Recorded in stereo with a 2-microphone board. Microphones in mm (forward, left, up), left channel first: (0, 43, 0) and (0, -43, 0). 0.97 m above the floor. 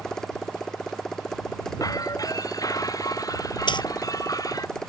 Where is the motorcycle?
10° left (ahead or behind).